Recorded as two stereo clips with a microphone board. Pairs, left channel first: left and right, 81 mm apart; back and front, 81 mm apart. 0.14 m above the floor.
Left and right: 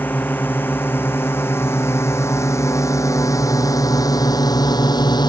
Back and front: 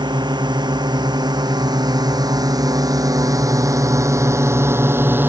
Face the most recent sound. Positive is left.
turn(degrees=65)